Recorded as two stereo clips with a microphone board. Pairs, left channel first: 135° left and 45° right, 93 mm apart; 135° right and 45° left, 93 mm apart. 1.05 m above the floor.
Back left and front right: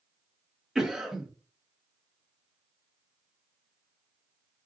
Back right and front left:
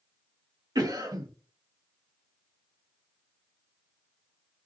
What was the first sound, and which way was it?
A cough, 35° left.